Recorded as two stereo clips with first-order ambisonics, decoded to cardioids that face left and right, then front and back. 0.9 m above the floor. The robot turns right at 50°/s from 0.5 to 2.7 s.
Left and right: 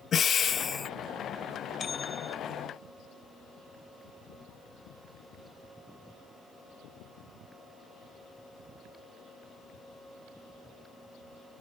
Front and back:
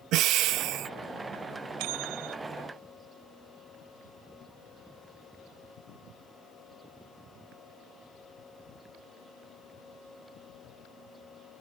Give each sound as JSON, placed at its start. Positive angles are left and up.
{"t": 0.1, "sound": "breathing", "azimuth_deg": 150}
{"t": 1.8, "sound": "a bell", "azimuth_deg": 155}